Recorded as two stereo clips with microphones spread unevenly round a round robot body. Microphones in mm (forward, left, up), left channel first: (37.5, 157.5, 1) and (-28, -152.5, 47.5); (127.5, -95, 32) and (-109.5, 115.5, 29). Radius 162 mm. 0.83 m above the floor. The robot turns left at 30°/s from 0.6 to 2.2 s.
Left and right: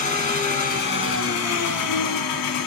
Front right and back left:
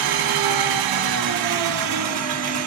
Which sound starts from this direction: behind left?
An engine running, at 0.0 s.